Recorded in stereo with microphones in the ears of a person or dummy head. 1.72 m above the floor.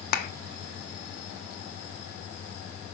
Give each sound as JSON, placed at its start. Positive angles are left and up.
{"t": 0.1, "sound": "a clap", "side_deg": 55, "distance_m": 1.0}